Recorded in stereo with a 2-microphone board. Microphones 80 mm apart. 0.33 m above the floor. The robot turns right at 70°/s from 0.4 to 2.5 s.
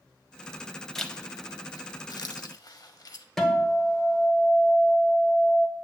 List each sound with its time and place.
0.9 s a zipper: 5° left (ahead or behind), 0.6 m; by 3.2 s 55° left (ahead or behind), 0.6 m
3.4 s a guitar: 5° left (ahead or behind), 1.3 m